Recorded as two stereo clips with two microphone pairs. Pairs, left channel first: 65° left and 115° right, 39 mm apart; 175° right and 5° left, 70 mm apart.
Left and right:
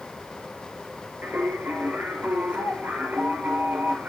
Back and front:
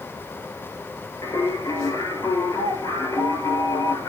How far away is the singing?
About 7 m.